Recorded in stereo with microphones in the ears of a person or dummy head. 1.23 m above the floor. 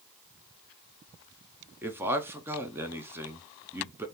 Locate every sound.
1.8 s a man speaking: 10° right (ahead or behind), 0.6 m